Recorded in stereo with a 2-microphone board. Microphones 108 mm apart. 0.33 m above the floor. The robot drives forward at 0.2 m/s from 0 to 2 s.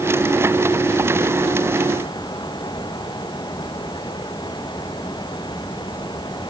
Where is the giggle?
No giggle in this recording.